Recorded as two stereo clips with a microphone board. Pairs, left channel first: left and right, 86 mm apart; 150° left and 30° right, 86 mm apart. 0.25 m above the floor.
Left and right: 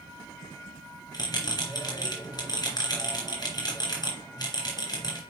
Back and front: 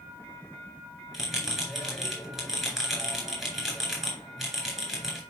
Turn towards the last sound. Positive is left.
turn(degrees=55)